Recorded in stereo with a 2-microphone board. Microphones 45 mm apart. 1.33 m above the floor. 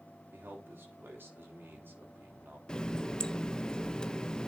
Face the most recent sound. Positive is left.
turn(degrees=15)  # may be behind; listen again after turning